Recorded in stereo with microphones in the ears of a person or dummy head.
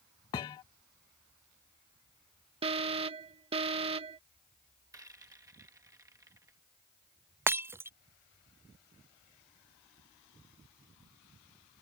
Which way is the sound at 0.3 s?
20° left (ahead or behind).